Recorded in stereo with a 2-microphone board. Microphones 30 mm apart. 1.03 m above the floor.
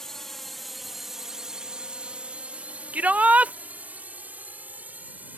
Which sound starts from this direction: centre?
A drone, at 0.0 s.